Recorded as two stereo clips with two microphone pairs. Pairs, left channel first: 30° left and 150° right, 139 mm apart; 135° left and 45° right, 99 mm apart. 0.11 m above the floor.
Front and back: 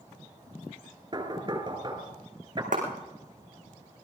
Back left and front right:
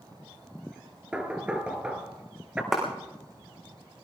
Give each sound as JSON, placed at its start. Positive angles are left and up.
{"t": 1.1, "sound": "knocking", "azimuth_deg": -115, "distance_m": 1.8}
{"t": 2.7, "sound": "a clap", "azimuth_deg": -130, "distance_m": 5.5}